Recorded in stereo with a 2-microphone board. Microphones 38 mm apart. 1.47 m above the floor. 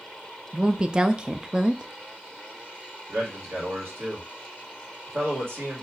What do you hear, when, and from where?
0.5 s a woman speaking: 20° right (ahead or behind), 0.5 m
3.1 s a man speaking: 80° right, 2.5 m